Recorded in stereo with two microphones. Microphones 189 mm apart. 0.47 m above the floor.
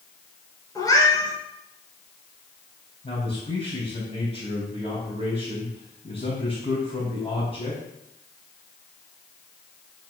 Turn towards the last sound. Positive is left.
turn(degrees=35)  # may be behind; listen again after turning